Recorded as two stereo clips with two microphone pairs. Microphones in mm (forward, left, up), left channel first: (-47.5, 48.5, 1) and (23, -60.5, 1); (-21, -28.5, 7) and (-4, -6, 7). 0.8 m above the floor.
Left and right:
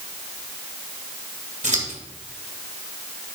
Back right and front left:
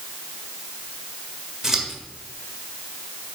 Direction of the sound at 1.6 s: 25° right.